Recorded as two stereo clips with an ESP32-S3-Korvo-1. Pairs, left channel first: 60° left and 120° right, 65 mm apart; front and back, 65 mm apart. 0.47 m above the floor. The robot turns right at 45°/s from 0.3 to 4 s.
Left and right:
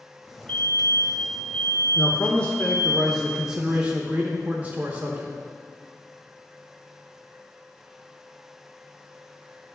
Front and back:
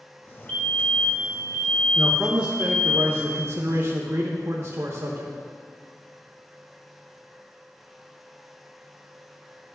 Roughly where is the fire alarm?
Ahead left.